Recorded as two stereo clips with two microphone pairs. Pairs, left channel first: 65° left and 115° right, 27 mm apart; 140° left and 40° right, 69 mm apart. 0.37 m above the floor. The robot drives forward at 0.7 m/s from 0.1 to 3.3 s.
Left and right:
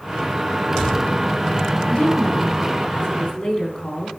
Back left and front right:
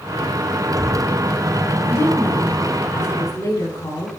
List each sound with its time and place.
1.9 s a woman speaking: 90° left, 2.5 m; by 4.1 s 110° left, 3 m